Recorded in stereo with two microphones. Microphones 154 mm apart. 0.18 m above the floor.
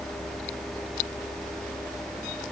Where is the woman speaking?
I don't hear a woman speaking.